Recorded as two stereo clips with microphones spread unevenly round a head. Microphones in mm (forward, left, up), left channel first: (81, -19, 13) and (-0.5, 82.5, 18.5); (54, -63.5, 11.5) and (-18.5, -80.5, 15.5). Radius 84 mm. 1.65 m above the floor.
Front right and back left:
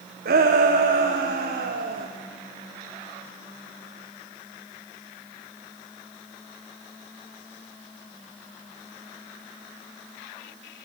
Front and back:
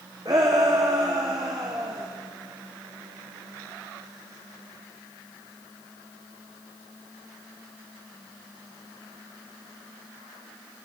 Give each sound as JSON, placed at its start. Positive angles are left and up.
{"t": 0.2, "sound": "a shout", "azimuth_deg": 125, "distance_m": 1.6}